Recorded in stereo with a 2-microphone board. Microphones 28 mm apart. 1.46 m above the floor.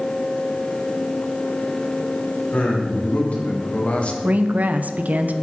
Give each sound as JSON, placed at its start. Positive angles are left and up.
{"t": 2.5, "sound": "a man speaking", "side_deg": 50, "distance_m": 4.0}
{"t": 4.2, "sound": "a woman speaking", "side_deg": -65, "distance_m": 0.9}